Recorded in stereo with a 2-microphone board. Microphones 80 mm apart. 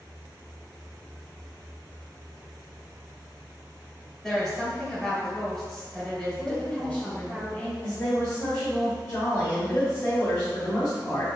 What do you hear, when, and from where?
4.2 s a woman speaking: 5° left (ahead or behind), 1.6 m
6.4 s a woman speaking: 15° left (ahead or behind), 1.0 m
7.8 s a woman speaking: 30° left (ahead or behind), 1.6 m